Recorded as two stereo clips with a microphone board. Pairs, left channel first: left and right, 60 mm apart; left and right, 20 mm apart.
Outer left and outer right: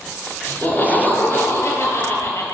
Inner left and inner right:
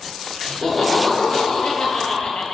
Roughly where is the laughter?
Left.